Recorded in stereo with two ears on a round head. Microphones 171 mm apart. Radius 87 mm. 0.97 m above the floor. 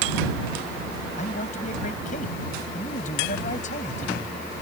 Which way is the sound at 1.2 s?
40° left (ahead or behind).